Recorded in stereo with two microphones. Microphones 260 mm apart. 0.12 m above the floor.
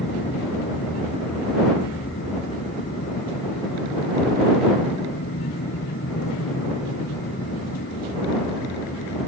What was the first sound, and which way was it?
An aircraft, 60° left (ahead or behind).